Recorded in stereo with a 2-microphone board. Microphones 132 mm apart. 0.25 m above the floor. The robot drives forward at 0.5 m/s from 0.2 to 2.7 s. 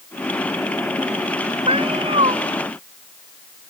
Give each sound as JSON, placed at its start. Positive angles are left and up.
{"t": 1.7, "sound": "a cat meowing", "side_deg": -45}